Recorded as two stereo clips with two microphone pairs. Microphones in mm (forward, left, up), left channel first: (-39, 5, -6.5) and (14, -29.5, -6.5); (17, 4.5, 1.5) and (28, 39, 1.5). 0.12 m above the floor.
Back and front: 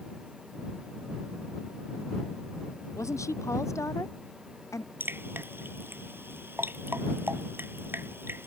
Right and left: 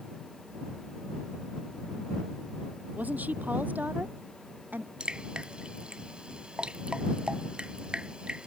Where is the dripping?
10° left.